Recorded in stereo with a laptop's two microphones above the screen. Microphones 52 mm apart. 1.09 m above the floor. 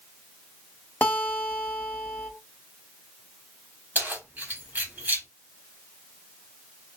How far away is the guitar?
About 1.3 m.